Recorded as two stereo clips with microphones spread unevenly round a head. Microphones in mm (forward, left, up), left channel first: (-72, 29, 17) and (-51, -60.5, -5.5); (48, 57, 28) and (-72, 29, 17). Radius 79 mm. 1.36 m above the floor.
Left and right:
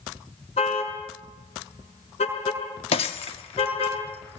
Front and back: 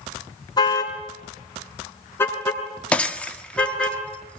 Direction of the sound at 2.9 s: 90° left.